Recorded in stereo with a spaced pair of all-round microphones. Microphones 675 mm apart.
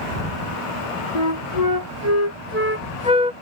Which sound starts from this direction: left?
A flute, at 1.1 s.